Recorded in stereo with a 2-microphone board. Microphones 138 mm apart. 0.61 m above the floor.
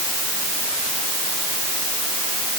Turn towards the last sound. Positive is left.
No sound to turn to.